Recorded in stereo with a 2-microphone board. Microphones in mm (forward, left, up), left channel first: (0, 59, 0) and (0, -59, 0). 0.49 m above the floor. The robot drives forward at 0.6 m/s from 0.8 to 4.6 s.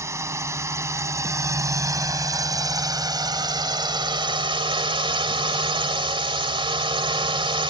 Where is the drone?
25° right (ahead or behind); by 7.7 s 40° right (ahead or behind).